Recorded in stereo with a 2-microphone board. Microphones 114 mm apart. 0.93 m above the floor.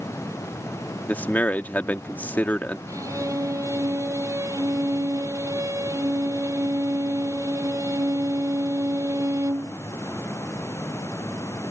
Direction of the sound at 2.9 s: 25° right (ahead or behind).